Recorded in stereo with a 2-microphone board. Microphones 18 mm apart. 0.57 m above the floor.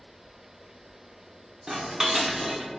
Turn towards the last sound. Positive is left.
turn(degrees=-40)  # may be behind; listen again after turning